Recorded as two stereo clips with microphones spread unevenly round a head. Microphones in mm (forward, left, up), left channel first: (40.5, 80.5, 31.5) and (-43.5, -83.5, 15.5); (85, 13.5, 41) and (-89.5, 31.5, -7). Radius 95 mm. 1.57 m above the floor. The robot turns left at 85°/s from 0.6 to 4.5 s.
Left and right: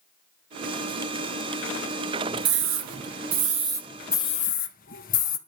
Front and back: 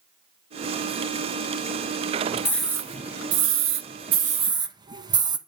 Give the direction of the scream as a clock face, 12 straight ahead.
3 o'clock.